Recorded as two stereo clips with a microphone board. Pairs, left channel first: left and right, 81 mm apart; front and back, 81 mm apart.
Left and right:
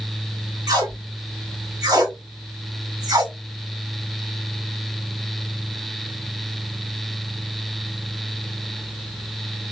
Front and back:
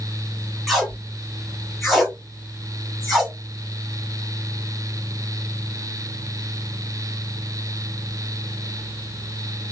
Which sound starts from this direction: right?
Tape being pulled, at 0.7 s.